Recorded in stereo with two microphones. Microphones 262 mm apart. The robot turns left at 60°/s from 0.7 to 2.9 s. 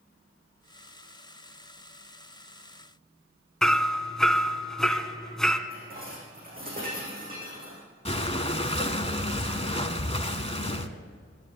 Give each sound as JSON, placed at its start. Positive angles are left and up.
{"t": 3.6, "sound": "hammering", "side_deg": 0, "distance_m": 1.0}
{"t": 5.7, "sound": "dishes clattering", "side_deg": -35, "distance_m": 5.5}
{"t": 8.1, "sound": "breathing", "side_deg": 25, "distance_m": 0.8}